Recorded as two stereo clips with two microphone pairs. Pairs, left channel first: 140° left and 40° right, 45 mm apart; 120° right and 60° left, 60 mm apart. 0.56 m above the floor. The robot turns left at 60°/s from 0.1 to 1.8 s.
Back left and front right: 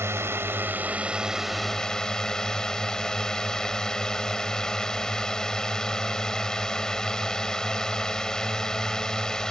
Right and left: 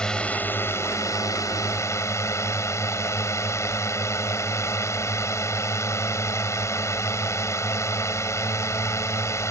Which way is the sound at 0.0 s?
45° right.